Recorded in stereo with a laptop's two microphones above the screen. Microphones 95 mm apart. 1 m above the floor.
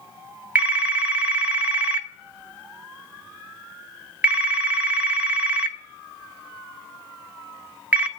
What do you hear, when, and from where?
0.6 s a phone ringing: 15° right (ahead or behind), 1.4 m